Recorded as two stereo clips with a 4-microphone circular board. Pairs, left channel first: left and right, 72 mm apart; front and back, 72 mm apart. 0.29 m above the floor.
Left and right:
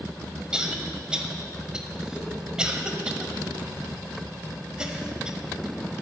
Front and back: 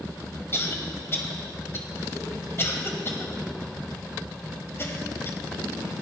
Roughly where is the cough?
Ahead.